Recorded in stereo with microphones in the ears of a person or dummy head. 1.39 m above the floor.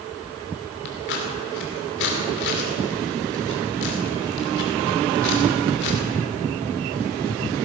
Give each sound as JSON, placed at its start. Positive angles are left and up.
{"t": 0.8, "sound": "scissors", "side_deg": 60, "distance_m": 2.5}